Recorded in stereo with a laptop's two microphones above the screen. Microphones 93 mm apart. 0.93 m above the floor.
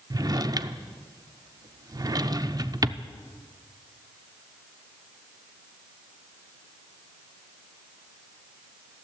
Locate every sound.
0.1 s a drawer: 40° right (ahead or behind), 0.6 m